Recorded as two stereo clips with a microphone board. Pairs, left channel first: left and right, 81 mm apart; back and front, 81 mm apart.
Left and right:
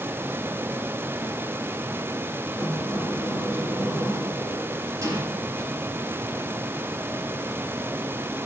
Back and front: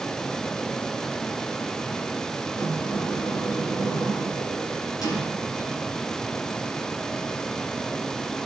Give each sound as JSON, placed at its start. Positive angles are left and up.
{"t": 2.5, "sound": "a sliding door", "azimuth_deg": -140, "distance_m": 6.5}